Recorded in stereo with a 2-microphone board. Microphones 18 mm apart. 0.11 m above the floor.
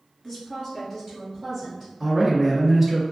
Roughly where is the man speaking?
Right.